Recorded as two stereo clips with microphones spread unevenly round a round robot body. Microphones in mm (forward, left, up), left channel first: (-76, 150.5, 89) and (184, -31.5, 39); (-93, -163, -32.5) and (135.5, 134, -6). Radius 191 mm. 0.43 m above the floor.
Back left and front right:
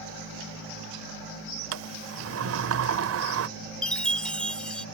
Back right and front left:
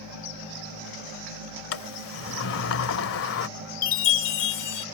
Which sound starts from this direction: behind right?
A chime, at 3.8 s.